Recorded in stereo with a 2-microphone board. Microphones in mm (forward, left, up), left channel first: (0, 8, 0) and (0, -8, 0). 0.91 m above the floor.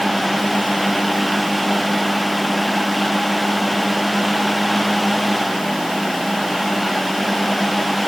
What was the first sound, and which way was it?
Only background noise.